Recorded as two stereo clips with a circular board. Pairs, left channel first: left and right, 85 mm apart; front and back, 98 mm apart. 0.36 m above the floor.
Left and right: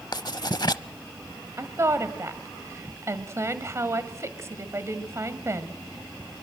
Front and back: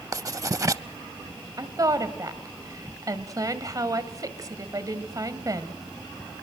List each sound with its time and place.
0.1 s writing: 125° left, 0.5 m
1.6 s a woman speaking: 140° right, 1.9 m